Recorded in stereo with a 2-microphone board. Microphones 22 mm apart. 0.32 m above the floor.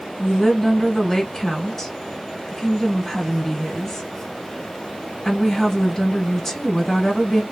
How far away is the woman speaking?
About 1.3 m.